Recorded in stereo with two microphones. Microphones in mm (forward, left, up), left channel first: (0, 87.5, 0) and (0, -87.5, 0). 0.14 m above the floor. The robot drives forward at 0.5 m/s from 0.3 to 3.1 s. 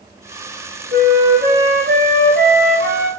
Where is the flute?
85° right, 3.5 m; by 3.1 s 75° right (ahead or behind), 3.5 m.